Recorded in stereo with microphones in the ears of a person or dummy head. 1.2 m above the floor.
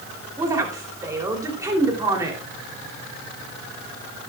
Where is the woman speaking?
25° right (ahead or behind), 3 m.